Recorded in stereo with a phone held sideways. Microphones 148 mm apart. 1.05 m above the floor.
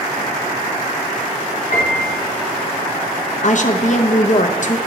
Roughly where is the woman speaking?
Left.